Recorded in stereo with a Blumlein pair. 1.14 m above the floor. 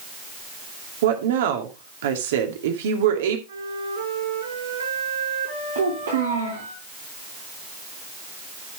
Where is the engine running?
No engine running in this recording.